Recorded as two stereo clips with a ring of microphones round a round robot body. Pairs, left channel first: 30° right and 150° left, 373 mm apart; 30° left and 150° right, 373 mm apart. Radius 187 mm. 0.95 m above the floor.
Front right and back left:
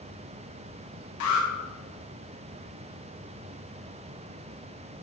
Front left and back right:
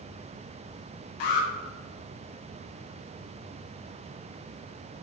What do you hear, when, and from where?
1.2 s an alarm: 15° left, 1.2 m